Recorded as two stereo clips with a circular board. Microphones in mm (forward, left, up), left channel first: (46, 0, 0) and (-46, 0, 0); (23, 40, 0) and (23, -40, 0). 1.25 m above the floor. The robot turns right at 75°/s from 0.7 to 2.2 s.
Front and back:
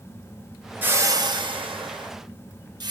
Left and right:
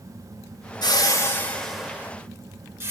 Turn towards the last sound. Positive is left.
turn(degrees=-145)